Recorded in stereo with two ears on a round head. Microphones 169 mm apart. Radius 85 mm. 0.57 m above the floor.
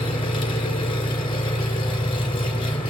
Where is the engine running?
30° left (ahead or behind), 2.5 m.